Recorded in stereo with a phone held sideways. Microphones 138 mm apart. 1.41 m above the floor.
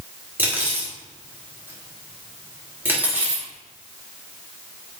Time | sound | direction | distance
0.4 | cutlery clinking | 15° right (ahead or behind) | 1.9 m